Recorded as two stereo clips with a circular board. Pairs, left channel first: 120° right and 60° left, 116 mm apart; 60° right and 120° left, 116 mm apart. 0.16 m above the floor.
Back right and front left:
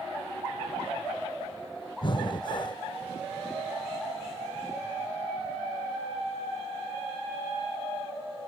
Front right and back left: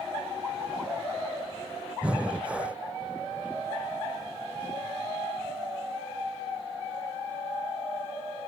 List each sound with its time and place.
2.0 s breathing: 160° right, 0.6 m